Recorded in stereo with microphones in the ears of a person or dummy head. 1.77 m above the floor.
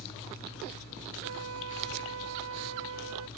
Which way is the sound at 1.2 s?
80° right.